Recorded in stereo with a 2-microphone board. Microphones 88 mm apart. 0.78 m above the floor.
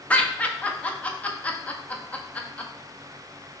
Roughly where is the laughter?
Centre.